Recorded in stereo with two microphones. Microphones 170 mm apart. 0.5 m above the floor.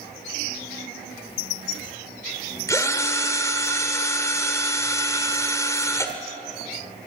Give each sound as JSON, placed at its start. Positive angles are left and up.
{"t": 2.7, "sound": "a drill", "side_deg": 20, "distance_m": 1.8}